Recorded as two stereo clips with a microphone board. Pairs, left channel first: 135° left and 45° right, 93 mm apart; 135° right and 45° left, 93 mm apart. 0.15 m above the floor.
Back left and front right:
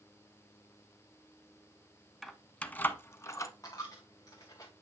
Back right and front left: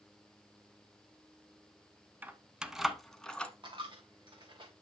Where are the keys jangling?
50° left, 0.8 m; by 3.5 s 155° left, 1.0 m.